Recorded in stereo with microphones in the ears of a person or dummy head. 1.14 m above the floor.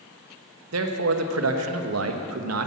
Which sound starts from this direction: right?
A man speaking, at 0.7 s.